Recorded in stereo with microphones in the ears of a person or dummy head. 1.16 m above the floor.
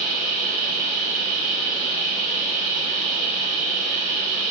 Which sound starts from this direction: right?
A machine running, at 0.0 s.